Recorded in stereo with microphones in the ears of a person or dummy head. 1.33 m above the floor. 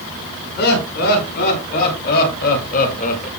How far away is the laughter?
About 5 m.